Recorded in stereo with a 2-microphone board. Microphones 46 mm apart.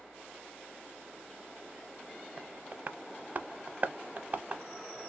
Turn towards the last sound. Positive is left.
turn(degrees=-40)  # may be behind; listen again after turning